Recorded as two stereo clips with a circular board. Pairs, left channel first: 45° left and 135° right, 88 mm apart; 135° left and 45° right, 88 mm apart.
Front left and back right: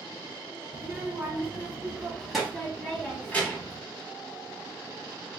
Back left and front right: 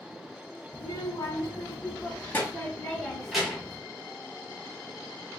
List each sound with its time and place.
0.7 s a child speaking: 160° left, 1.6 m; by 3.8 s 20° left, 1.1 m